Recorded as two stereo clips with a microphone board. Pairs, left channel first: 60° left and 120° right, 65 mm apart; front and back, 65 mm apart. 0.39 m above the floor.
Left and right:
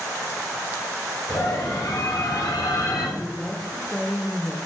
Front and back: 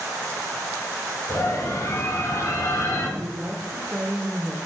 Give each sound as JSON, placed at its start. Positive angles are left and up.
{"t": 1.3, "sound": "a scream", "azimuth_deg": 45, "distance_m": 4.5}
{"t": 3.2, "sound": "a woman speaking", "azimuth_deg": 155, "distance_m": 0.9}